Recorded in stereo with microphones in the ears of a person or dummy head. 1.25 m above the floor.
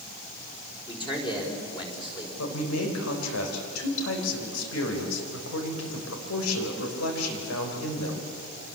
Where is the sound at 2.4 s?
85° left, 5 m.